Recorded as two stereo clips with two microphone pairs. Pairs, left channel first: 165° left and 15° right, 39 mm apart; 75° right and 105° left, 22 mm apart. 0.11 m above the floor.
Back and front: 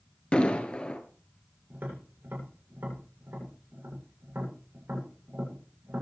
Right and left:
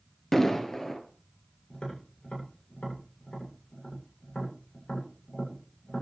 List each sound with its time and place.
0.3 s an explosion: 145° right, 2 m
1.7 s tapping: 35° right, 8.5 m